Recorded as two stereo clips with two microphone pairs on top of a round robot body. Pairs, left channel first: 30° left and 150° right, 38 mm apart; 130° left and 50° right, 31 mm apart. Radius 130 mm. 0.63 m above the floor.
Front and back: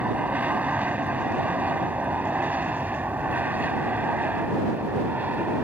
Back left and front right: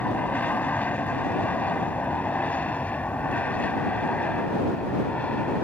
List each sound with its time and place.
0.0 s an aircraft: 165° left; by 5.6 s 175° left